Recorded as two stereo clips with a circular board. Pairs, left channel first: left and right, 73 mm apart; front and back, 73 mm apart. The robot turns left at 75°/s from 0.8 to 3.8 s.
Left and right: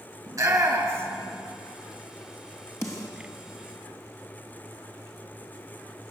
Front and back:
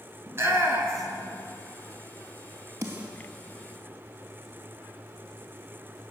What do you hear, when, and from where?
0.3 s a shout: 125° right, 4.5 m; by 1.3 s 165° right, 4.5 m
2.8 s a snare drum: 135° left, 3 m; by 3.1 s 110° left, 3 m